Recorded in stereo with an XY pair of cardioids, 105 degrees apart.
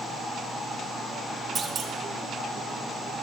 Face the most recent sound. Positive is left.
turn(degrees=-45)